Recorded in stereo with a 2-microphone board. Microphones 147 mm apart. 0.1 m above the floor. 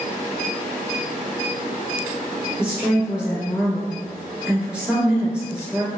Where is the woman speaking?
5° right (ahead or behind), 1.2 m.